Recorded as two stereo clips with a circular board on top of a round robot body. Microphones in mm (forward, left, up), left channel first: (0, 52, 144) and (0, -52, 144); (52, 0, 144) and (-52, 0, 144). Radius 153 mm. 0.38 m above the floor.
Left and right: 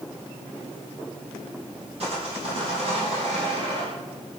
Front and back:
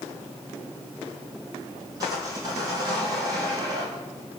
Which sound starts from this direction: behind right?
Sawing, at 2.0 s.